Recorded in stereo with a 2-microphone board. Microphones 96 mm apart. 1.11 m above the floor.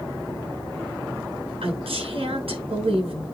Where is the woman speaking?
80° right, 7 m.